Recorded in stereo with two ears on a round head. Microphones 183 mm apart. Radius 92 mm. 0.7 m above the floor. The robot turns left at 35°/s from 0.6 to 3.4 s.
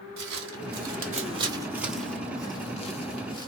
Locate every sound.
0.2 s footsteps: 60° right (ahead or behind), 1.6 m; by 3.5 s 20° left (ahead or behind), 0.8 m